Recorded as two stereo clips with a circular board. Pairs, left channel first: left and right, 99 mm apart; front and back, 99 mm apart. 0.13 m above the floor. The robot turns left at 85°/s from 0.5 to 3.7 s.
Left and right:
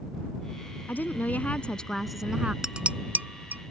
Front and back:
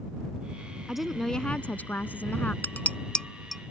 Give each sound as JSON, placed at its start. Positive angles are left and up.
{"t": 0.9, "sound": "a woman speaking", "azimuth_deg": 105}
{"t": 2.6, "sound": "dishes clattering", "azimuth_deg": -15}